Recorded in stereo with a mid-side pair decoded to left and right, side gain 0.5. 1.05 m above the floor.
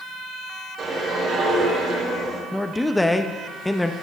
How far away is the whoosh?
About 3.5 m.